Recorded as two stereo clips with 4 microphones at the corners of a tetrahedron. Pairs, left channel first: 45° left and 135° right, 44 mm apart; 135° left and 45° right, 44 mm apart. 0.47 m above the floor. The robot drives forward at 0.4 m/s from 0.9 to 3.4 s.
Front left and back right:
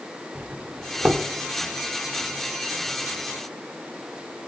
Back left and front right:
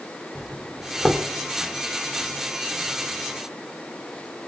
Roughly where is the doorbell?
Behind right.